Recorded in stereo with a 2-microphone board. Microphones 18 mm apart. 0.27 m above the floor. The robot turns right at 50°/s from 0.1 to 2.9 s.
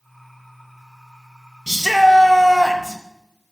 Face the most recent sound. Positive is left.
turn(degrees=-135)